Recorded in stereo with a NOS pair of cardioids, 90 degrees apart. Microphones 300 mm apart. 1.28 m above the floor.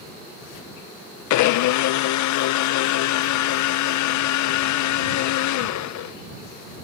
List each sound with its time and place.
1.3 s a blender: 70° left